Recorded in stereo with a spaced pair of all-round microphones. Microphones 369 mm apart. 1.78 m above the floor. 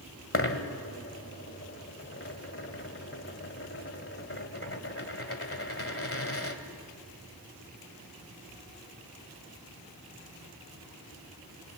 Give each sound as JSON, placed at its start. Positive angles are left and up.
{"t": 0.3, "sound": "a dropped coin", "side_deg": 35, "distance_m": 1.8}